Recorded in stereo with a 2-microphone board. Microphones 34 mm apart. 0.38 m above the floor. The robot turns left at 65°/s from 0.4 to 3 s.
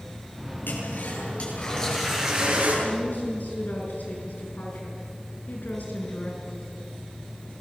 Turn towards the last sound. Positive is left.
turn(degrees=55)  # may be behind; listen again after turning